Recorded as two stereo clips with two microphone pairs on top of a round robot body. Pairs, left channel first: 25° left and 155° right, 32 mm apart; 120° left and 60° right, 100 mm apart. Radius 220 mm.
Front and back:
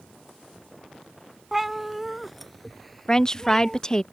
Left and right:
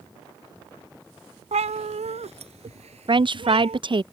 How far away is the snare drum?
No snare drum in this recording.